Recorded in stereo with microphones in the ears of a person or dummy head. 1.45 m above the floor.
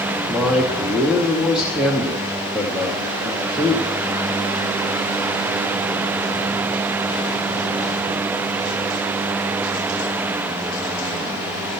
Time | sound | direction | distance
0.3 | a man speaking | centre (ahead or behind) | 1.0 m